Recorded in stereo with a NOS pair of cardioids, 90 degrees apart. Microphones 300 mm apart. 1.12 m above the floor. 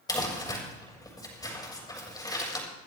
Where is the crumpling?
15° left, 6.5 m.